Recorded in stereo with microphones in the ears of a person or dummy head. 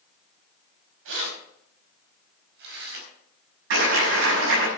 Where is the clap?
70° right (ahead or behind), 6.5 m.